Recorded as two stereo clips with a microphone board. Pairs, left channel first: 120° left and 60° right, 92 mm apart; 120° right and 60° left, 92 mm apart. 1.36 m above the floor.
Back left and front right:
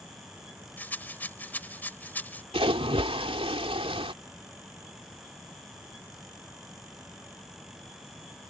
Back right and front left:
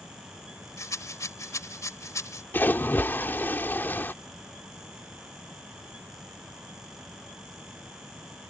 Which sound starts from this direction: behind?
A rattle, at 0.8 s.